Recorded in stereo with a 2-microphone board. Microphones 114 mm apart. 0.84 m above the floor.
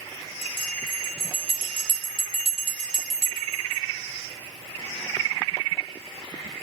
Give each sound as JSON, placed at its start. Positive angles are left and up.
{"t": 0.4, "sound": "a bell", "side_deg": -55, "distance_m": 1.3}